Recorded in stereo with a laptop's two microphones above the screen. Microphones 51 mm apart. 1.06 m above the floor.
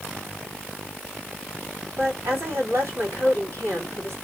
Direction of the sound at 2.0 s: 60° right (ahead or behind).